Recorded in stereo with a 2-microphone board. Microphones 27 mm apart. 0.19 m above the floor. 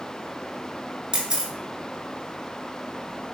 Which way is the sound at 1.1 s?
30° right (ahead or behind).